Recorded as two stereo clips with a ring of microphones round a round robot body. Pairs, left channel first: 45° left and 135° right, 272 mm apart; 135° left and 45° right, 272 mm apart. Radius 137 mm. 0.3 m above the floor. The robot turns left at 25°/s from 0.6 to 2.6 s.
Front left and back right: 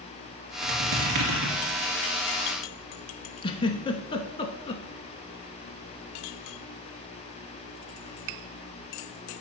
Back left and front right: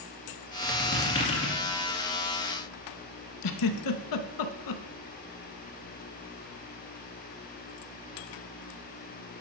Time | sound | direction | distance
0.6 | a squeak | 135° right | 2 m
3.4 | a giggle | 115° left | 0.7 m